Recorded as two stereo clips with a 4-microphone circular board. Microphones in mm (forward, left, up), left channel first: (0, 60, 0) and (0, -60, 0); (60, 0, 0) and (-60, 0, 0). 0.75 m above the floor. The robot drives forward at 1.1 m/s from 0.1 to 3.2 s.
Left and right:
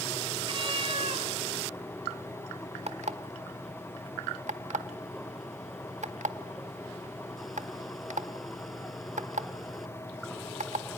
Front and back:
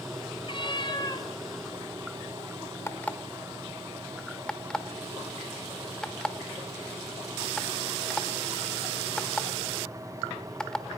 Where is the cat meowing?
45° right, 3 m; by 1.3 s 60° right, 2.5 m.